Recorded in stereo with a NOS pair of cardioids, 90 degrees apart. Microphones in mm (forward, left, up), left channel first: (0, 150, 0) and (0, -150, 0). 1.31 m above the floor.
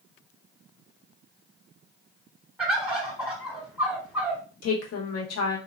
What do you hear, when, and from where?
2.6 s a bird: 5° right, 1.2 m
4.6 s a woman speaking: 60° left, 1.1 m